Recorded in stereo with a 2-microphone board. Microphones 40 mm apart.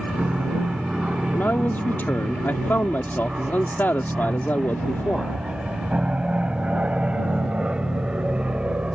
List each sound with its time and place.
0.0 s an aircraft: 30° right (ahead or behind); by 9.0 s 25° right (ahead or behind)
1.3 s a man speaking: 60° left (ahead or behind)